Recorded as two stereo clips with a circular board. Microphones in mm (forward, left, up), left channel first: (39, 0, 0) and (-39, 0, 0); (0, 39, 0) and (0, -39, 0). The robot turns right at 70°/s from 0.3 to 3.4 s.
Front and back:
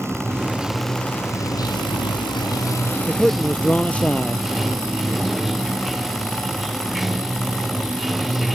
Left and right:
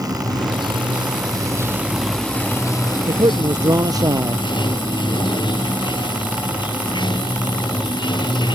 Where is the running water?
125° right; by 8.6 s 90° left.